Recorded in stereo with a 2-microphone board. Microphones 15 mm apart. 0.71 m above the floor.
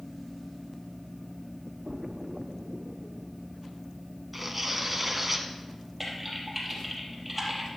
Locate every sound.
1.9 s a splash: 50° right (ahead or behind), 0.7 m
4.3 s tearing paper: 10° right (ahead or behind), 1.6 m
6.0 s typing on a keyboard: 5° right (ahead or behind), 3.5 m